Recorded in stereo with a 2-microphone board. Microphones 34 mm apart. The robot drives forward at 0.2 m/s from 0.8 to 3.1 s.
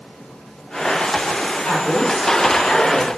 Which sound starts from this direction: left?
A woman speaking, at 1.6 s.